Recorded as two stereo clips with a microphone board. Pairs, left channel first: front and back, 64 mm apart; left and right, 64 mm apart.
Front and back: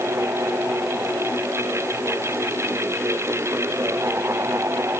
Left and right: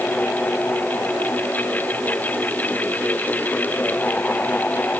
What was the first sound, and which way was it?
Only background noise.